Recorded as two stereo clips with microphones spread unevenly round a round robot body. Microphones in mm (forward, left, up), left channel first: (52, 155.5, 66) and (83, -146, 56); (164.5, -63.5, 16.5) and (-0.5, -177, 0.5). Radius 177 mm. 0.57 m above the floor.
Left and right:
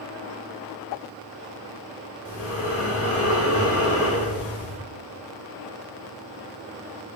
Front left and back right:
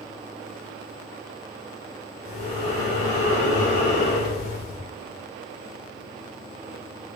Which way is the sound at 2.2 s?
50° left.